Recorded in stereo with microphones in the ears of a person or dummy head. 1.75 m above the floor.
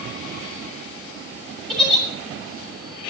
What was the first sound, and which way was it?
A giggle, 5° left (ahead or behind).